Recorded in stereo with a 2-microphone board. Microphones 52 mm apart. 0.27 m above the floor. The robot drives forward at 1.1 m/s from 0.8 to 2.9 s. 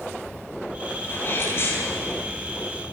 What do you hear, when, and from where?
1.0 s a sneeze: 50° left (ahead or behind), 9.5 m; by 2.2 s 55° left (ahead or behind), 8.5 m